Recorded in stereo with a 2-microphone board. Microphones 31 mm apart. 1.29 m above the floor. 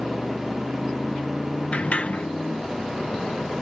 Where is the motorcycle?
55° left (ahead or behind); by 3.6 s 90° left.